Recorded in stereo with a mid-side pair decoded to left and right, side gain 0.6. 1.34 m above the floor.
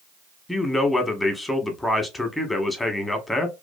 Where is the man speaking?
10° left, 0.9 m.